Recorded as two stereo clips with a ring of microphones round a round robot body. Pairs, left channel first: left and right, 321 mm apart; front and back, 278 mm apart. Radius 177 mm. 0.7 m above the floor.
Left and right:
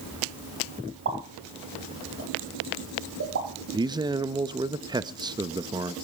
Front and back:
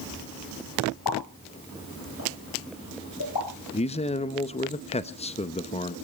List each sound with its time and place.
1.1 s a pop: 40° right, 5.5 m
3.7 s a man speaking: 30° right, 0.8 m